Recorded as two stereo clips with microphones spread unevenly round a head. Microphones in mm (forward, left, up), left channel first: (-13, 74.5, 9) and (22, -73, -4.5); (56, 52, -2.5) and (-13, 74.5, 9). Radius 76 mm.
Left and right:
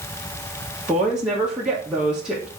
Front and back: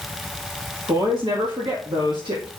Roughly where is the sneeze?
I don't hear a sneeze.